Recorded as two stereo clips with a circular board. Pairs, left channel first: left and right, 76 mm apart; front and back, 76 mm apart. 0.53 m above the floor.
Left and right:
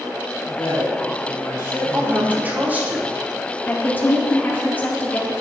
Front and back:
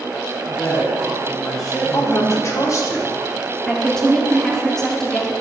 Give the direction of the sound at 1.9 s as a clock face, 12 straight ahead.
1 o'clock.